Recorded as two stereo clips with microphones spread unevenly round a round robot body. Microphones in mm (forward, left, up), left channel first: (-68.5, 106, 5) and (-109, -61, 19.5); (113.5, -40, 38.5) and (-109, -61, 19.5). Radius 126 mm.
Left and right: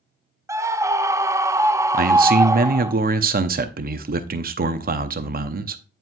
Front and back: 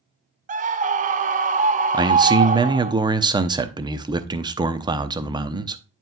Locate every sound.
0.5 s a scream: 175° right, 0.6 m
1.9 s a man speaking: 115° right, 0.8 m